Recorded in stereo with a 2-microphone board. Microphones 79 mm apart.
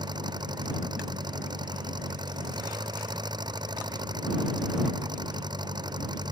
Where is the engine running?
65° right (ahead or behind).